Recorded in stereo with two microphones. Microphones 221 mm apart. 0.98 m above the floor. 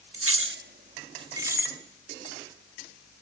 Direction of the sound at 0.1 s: 75° right (ahead or behind).